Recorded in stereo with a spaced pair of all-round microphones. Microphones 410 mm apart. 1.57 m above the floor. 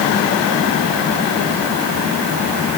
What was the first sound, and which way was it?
Only background noise.